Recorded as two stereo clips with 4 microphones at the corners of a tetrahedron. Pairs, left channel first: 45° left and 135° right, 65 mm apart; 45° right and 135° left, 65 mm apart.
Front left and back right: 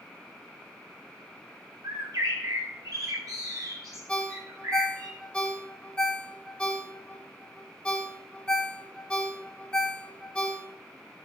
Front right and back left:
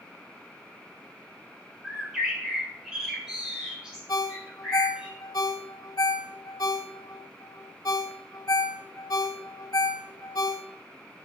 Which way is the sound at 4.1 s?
30° right.